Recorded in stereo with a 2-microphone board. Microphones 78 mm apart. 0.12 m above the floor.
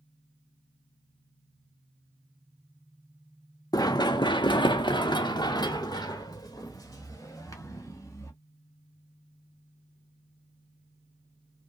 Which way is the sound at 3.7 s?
55° left (ahead or behind).